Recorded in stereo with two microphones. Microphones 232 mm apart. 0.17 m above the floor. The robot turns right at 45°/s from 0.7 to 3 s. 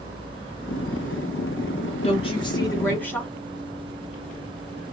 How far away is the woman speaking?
About 1.1 m.